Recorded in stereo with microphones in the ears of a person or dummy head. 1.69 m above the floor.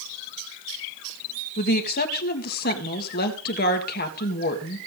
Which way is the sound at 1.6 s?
45° left (ahead or behind).